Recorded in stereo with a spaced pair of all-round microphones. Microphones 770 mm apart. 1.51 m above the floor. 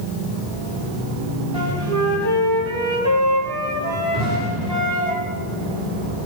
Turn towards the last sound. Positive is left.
turn(degrees=-20)  # may be behind; listen again after turning